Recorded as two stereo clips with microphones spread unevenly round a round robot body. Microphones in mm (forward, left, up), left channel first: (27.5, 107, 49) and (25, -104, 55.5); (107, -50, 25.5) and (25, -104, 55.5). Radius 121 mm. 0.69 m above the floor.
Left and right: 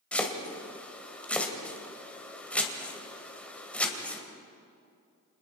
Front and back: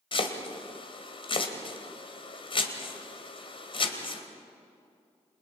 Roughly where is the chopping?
Ahead.